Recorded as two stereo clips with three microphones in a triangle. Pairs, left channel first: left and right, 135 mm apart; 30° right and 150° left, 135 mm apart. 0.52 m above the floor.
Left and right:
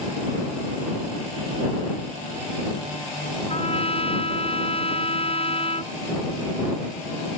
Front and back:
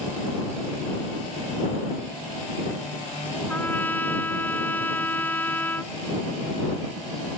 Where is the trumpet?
45° left.